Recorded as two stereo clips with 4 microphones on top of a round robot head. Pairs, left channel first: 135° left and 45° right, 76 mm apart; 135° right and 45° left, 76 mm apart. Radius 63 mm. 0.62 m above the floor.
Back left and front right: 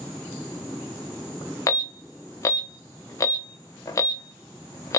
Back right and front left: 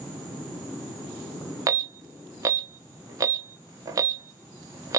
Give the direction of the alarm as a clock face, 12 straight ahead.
9 o'clock.